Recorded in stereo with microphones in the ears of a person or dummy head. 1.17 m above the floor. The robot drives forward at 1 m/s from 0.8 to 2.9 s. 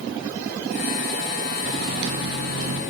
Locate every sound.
1.6 s a microwave: 55° right (ahead or behind), 2.5 m; by 2.8 s 80° right, 2 m